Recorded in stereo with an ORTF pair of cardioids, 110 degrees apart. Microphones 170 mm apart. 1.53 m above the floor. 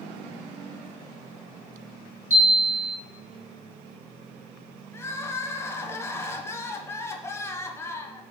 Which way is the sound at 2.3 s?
15° right.